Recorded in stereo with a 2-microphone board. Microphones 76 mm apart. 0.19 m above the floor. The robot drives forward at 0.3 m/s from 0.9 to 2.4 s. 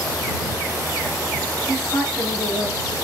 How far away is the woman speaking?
About 1.1 m.